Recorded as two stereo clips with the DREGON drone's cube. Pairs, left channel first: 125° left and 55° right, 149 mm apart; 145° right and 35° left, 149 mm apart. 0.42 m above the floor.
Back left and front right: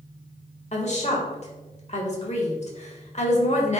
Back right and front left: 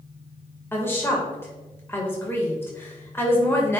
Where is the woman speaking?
145° left, 1.8 m.